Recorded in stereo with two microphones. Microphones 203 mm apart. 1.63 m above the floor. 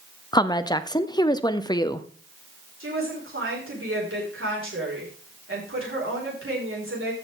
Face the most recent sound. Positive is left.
turn(degrees=-85)